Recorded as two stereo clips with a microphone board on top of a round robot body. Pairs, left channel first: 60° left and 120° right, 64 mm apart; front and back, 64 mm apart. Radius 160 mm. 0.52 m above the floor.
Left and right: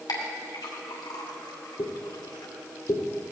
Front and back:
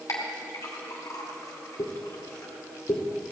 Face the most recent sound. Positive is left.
turn(degrees=30)